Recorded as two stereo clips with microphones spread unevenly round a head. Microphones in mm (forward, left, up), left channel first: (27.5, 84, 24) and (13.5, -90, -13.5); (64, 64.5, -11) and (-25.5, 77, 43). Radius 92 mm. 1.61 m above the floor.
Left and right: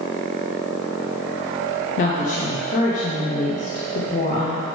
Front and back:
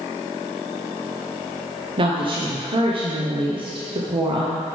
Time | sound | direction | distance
2.0 | a woman speaking | 140° left | 0.9 m